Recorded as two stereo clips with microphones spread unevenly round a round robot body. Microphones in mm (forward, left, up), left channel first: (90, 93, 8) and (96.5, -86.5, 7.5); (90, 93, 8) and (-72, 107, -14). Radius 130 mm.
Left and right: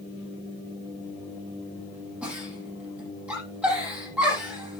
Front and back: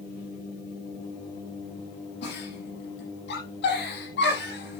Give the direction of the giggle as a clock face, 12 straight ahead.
12 o'clock.